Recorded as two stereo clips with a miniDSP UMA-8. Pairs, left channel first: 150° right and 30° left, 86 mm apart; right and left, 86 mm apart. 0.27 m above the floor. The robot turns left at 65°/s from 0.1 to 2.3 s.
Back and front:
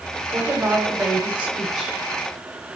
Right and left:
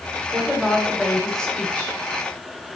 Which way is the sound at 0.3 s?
50° left.